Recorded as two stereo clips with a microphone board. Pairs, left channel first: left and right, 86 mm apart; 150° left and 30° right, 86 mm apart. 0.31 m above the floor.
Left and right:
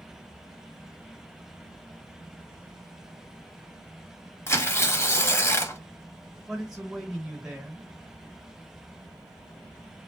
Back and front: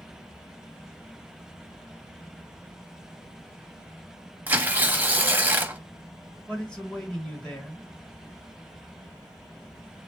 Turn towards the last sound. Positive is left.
turn(degrees=-160)